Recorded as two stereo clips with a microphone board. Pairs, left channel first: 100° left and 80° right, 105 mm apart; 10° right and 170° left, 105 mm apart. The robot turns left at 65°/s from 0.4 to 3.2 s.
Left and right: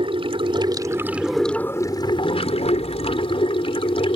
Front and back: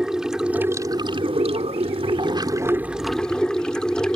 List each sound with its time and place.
0.0 s running water: 110° right; by 4.2 s 70° left